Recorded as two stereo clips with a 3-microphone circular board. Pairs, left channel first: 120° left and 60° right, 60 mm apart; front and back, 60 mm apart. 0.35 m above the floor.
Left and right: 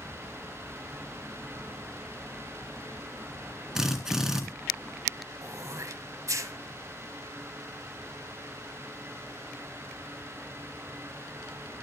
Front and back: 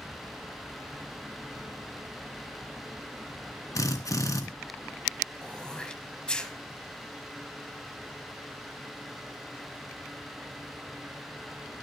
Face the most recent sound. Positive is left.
turn(degrees=-75)